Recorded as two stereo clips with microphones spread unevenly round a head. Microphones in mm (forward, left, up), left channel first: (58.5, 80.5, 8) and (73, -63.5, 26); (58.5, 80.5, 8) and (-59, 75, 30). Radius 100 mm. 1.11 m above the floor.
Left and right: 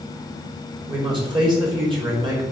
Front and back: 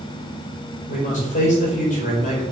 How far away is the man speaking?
About 4 m.